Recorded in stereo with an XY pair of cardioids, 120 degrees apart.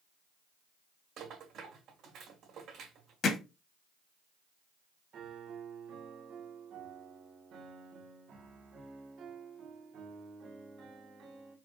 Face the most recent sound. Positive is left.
turn(degrees=-65)